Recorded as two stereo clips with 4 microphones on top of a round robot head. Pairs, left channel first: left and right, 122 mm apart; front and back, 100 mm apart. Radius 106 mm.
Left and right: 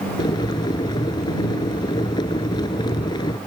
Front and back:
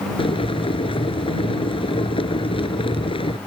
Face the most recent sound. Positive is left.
turn(degrees=25)